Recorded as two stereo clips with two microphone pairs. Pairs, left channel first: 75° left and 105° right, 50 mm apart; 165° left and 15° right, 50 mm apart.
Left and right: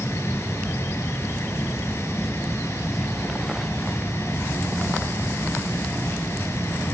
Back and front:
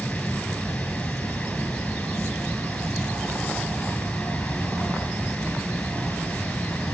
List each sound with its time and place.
0.0 s running water: 95° left, 2.5 m